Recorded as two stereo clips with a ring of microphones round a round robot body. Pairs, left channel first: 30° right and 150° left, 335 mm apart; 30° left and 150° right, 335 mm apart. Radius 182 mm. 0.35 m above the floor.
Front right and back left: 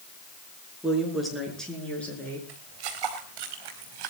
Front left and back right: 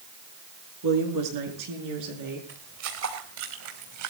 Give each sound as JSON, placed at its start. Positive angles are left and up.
{"t": 0.8, "sound": "a woman speaking", "azimuth_deg": -120, "distance_m": 6.5}
{"t": 2.5, "sound": "footsteps", "azimuth_deg": 165, "distance_m": 3.5}